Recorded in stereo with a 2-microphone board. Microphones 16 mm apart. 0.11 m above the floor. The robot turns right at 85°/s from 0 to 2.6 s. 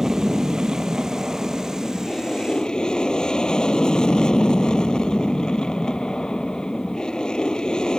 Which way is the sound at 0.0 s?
145° right.